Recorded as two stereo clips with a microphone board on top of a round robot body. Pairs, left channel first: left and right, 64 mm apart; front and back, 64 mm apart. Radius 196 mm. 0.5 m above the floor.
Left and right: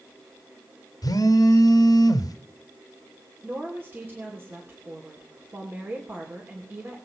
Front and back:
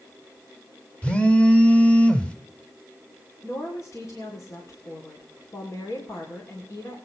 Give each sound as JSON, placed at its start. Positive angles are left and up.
{"t": 1.0, "sound": "a phone buzzing", "azimuth_deg": 75, "distance_m": 1.3}
{"t": 3.4, "sound": "a woman speaking", "azimuth_deg": -35, "distance_m": 2.5}